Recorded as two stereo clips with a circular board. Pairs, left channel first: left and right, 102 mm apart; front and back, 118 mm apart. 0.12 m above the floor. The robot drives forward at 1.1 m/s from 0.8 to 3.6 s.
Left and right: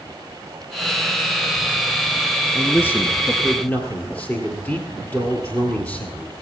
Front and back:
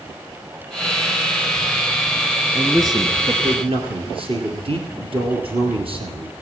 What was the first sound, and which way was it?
A man speaking, 130° left.